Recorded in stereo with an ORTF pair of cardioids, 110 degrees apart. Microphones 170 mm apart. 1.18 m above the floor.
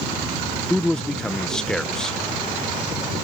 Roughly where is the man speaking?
Ahead.